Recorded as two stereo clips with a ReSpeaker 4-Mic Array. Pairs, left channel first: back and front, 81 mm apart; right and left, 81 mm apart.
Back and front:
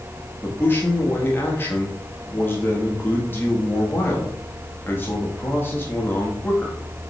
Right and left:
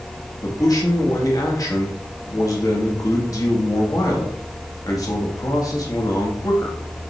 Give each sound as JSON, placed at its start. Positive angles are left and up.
{"t": 0.4, "sound": "a man speaking", "azimuth_deg": -120, "distance_m": 1.6}